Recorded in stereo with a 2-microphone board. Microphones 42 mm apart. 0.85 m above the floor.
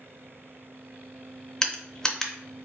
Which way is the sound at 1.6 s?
15° left (ahead or behind).